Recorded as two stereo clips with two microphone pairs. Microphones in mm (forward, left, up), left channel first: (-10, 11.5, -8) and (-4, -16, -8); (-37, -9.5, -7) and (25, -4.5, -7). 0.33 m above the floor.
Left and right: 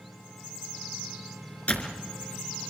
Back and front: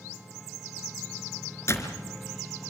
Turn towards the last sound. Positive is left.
turn(degrees=145)